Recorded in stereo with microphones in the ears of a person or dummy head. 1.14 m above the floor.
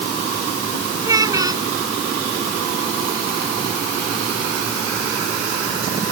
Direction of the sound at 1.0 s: 20° right (ahead or behind).